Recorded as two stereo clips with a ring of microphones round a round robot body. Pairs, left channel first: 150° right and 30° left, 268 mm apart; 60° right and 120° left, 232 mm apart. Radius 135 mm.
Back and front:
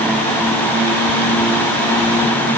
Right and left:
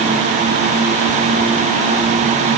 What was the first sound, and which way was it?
Only background noise.